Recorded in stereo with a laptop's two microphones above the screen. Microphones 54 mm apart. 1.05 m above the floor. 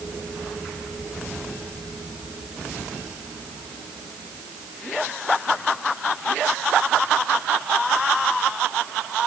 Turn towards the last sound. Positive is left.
No sound to turn to.